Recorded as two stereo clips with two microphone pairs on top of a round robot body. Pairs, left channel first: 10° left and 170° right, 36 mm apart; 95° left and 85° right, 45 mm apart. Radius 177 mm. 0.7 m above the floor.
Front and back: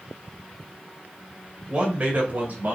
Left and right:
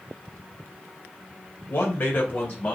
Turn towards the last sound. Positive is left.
turn(degrees=150)